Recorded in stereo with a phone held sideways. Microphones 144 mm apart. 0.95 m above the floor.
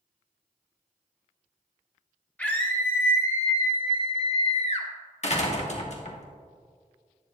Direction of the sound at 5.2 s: 50° left (ahead or behind).